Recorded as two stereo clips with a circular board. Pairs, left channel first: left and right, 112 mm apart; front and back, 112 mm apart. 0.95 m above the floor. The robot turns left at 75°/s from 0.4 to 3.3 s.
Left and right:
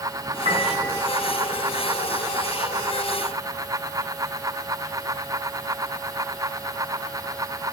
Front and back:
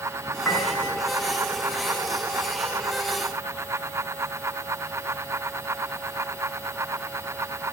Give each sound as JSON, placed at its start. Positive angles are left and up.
{"t": 0.5, "sound": "a piano", "azimuth_deg": -70, "distance_m": 9.0}